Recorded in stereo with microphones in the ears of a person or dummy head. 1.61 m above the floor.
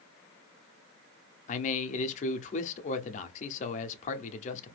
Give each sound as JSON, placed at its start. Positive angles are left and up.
{"t": 1.5, "sound": "a man speaking", "side_deg": 50, "distance_m": 0.5}